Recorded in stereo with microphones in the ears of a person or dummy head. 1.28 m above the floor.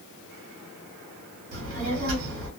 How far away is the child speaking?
About 1.4 m.